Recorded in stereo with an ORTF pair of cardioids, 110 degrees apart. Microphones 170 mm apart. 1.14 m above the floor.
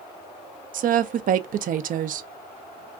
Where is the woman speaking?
55° right, 0.6 m.